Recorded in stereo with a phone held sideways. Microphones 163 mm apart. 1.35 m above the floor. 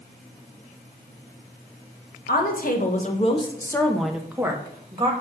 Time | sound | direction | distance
2.3 | a woman speaking | 70° left (ahead or behind) | 1.3 m